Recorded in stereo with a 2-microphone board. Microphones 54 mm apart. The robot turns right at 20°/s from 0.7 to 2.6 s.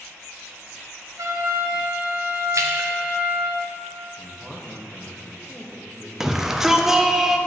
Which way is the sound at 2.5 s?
65° right (ahead or behind).